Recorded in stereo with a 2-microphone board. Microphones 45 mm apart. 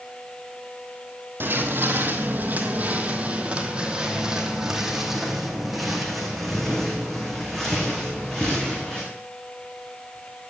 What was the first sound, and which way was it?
Footsteps, 55° right (ahead or behind).